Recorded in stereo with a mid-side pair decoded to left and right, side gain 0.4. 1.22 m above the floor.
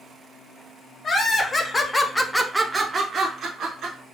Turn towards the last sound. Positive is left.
turn(degrees=-75)